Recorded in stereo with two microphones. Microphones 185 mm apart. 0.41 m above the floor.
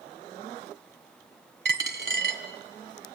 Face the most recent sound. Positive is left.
turn(degrees=-70)  # may be behind; listen again after turning